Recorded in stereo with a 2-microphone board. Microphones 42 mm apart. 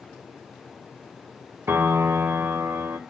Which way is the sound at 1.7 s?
75° right (ahead or behind).